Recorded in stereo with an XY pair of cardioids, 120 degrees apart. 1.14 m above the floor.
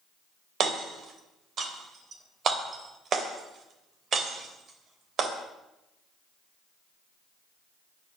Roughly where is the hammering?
Ahead right.